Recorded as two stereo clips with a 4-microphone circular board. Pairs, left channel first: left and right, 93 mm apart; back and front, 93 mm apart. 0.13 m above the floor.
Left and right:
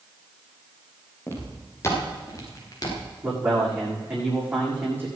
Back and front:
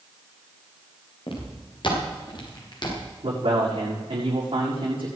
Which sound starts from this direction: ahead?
A man speaking, at 3.2 s.